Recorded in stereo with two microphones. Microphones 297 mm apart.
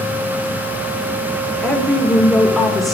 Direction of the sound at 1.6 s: Centre (ahead or behind).